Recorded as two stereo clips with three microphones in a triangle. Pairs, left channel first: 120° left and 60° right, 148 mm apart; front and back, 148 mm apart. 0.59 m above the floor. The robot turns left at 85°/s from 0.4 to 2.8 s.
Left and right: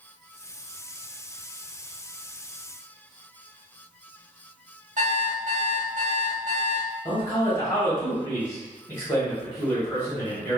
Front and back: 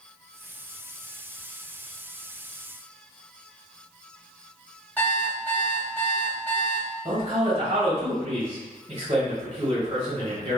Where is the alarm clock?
80° right, 0.8 m.